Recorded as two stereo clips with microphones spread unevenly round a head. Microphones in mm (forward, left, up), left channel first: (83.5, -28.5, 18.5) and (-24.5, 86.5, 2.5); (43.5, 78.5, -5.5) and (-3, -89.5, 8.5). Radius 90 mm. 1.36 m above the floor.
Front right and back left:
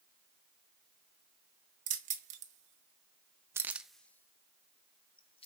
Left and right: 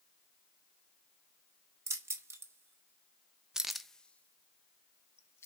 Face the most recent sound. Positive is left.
turn(degrees=0)